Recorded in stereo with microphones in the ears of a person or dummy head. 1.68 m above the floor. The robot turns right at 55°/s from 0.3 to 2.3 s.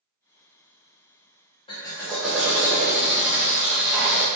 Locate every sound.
1.7 s a drill: 150° left, 0.6 m; by 4.3 s 175° right, 0.6 m